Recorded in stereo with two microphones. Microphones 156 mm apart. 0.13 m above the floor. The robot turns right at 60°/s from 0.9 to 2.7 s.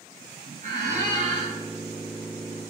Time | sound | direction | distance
0.6 | a squeak | 85° right | 0.8 m